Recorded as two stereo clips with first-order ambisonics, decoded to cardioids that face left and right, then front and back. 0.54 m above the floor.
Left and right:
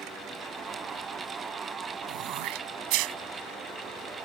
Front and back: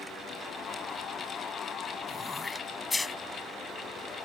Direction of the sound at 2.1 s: 80° right.